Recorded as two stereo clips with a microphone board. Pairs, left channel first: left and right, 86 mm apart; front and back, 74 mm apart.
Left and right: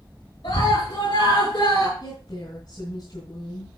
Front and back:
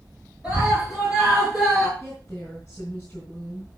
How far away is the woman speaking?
About 3 m.